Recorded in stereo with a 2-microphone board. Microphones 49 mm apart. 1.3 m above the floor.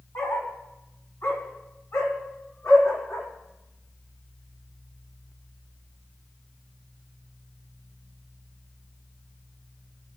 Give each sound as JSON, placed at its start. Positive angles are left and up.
{"t": 0.1, "sound": "a dog barking", "side_deg": 65, "distance_m": 4.0}